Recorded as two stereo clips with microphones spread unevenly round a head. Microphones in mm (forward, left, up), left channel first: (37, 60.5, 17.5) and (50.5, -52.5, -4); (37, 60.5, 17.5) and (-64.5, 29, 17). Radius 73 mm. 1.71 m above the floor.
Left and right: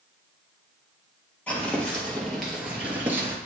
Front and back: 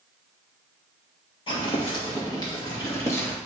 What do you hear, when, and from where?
1.5 s footsteps: 30° left, 2.5 m; by 3.4 s 25° right, 1.7 m